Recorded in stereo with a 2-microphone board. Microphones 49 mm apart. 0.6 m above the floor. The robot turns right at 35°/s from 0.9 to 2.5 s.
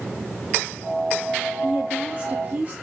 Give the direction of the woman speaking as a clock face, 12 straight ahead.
5 o'clock.